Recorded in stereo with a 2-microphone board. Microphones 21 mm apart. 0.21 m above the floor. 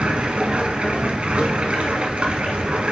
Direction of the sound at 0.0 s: 65° right (ahead or behind).